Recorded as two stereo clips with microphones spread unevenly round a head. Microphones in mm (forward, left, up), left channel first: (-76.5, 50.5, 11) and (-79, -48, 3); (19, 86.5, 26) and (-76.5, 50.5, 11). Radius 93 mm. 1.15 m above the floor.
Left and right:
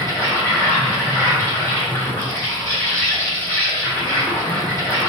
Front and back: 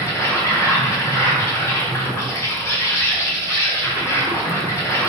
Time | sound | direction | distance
0.0 | an insect | 60° left | 1.1 m